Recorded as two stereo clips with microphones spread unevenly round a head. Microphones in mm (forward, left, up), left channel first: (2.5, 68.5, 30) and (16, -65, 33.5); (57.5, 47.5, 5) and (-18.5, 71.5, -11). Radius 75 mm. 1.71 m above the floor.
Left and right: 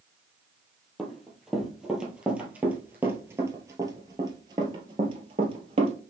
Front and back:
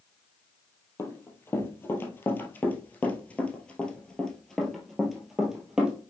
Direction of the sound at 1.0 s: 5° left.